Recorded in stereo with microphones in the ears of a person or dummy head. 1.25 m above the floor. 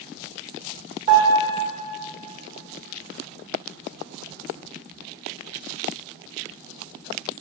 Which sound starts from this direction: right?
A piano, at 1.1 s.